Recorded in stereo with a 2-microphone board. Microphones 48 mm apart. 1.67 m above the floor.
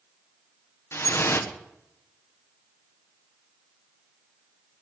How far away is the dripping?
About 1.1 m.